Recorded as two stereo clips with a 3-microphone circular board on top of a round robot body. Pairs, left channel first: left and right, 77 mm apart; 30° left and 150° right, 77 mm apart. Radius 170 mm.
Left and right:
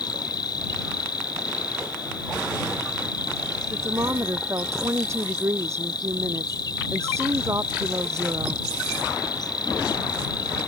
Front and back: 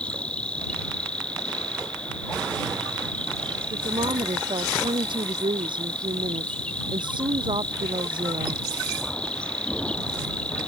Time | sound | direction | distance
0.0 | an insect | 105° left | ?
3.7 | a woman speaking | 145° right | ?